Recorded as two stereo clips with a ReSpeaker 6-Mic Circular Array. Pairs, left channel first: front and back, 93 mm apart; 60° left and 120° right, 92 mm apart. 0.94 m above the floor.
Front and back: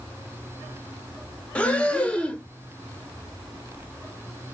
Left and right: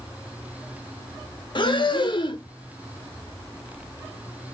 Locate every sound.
1.6 s breathing: 75° left, 0.6 m